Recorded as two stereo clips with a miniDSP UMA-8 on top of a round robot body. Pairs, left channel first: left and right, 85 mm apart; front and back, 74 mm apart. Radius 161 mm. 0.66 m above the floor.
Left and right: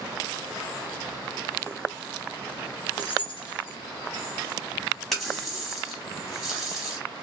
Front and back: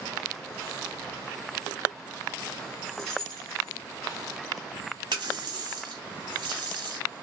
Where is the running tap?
175° left, 1.1 m.